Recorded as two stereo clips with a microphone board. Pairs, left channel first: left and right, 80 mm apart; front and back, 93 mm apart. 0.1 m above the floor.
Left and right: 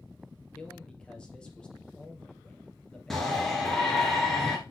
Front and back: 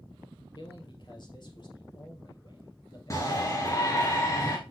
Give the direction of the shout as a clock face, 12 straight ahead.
12 o'clock.